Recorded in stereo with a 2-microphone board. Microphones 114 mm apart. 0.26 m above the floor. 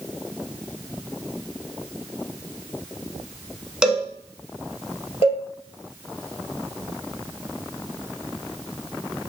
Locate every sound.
3.8 s a cowbell: 5° right (ahead or behind), 0.6 m
5.2 s a cowbell: 60° left (ahead or behind), 1.4 m